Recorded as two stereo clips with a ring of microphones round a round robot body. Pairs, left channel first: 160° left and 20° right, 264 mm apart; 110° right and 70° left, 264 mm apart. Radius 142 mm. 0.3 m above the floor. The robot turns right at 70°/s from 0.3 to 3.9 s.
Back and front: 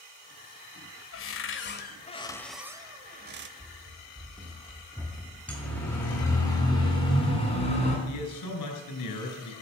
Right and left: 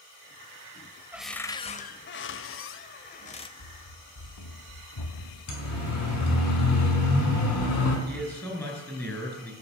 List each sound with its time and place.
1.1 s a cupboard door: 150° left, 1.2 m; by 3.5 s 45° right, 1.2 m
3.6 s running footsteps: 105° right, 1.8 m; by 6.5 s 140° right, 2 m
5.5 s a siren: 115° right, 4.5 m; by 8.0 s 140° right, 4.5 m
8.1 s a man speaking: 165° left, 5.5 m